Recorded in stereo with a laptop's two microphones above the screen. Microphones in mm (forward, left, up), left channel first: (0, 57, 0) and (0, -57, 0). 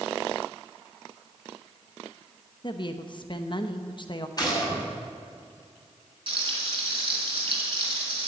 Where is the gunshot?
35° left (ahead or behind), 5.5 m.